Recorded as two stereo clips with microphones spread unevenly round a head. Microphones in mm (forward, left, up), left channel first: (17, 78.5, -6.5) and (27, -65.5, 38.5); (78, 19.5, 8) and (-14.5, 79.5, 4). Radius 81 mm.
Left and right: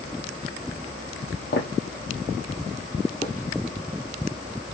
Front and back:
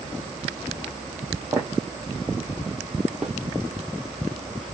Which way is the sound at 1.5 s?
95° left.